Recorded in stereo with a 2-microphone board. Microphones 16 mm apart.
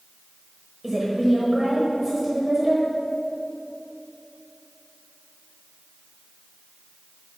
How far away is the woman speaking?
About 1.1 m.